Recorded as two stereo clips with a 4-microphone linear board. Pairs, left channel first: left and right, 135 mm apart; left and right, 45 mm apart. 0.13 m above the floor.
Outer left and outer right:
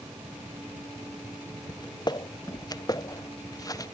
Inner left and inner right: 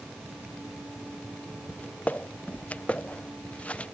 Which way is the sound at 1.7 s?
35° left (ahead or behind).